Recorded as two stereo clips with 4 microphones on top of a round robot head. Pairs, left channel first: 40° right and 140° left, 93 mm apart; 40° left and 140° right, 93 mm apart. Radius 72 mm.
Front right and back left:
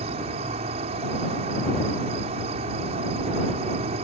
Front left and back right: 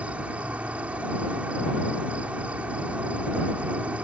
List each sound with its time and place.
0.0 s an insect: 145° left